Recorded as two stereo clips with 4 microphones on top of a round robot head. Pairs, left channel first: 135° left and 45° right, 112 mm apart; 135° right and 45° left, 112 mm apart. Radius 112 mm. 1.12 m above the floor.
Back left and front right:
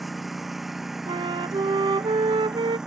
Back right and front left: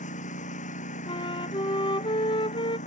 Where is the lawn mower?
135° right; by 2.9 s 130° right.